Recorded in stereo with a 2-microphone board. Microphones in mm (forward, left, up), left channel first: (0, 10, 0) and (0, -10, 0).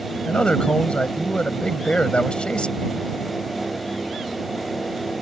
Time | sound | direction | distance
0.2 | a man speaking | 55° left (ahead or behind) | ?